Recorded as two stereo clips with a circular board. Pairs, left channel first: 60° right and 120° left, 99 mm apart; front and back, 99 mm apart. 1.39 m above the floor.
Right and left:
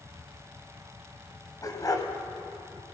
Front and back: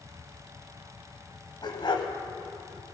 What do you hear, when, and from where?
1.6 s a dog barking: 15° right, 1.9 m